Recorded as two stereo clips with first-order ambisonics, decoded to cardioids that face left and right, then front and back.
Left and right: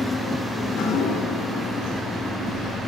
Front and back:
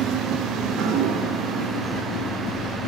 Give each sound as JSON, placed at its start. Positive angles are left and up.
{"t": 0.6, "sound": "dripping", "azimuth_deg": 135, "distance_m": 4.5}